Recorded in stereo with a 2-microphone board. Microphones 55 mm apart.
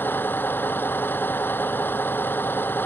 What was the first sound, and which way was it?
A vehicle, 40° left (ahead or behind).